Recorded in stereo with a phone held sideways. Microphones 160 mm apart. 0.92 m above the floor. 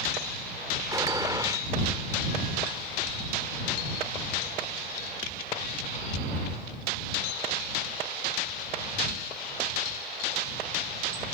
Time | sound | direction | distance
0.9 | a gunshot | 20° right (ahead or behind) | ?